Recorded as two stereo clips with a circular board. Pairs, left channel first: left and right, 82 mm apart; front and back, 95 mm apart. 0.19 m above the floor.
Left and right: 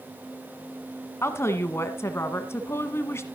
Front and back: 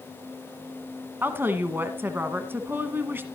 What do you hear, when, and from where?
1.2 s a woman speaking: 125° left, 1.3 m